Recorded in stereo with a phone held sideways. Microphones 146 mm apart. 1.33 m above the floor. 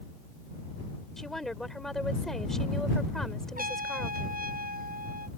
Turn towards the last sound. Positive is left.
turn(degrees=-80)